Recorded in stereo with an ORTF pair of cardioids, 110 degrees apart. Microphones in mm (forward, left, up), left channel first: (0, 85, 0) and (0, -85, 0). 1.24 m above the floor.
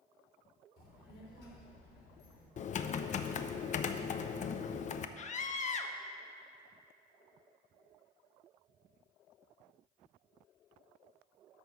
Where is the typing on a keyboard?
45° left, 0.5 m.